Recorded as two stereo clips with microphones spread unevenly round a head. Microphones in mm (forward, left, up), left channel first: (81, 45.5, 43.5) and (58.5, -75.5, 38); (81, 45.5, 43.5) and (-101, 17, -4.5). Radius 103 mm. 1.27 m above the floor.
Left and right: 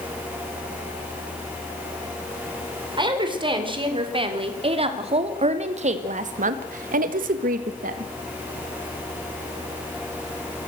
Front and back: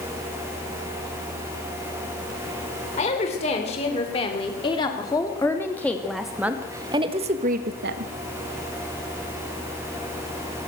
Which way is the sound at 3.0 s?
50° right.